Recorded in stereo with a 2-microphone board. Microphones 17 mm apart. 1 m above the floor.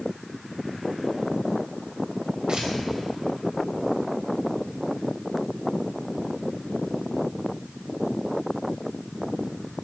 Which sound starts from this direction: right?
Tearing paper, at 2.5 s.